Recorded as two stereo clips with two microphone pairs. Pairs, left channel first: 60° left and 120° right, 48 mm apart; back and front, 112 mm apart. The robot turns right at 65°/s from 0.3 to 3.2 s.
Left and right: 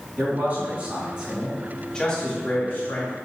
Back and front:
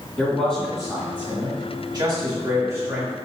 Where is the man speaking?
115° right, 1.8 m; by 3.1 s 70° left, 1.8 m.